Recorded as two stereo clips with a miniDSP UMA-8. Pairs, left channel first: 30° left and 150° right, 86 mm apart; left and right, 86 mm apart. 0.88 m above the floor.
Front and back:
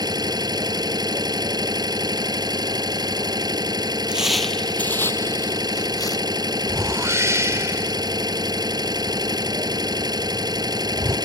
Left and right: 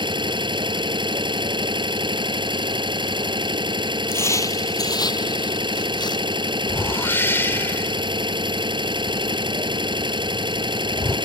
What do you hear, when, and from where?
0.0 s an engine running: 110° right
4.1 s footsteps: 140° left; by 6.3 s 65° left
6.7 s a whoosh: 155° left